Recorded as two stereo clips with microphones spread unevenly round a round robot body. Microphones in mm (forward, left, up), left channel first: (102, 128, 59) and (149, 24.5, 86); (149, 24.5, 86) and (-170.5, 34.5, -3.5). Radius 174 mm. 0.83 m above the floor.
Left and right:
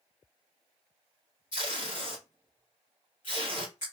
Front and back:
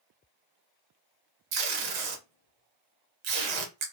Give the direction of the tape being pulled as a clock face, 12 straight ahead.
6 o'clock.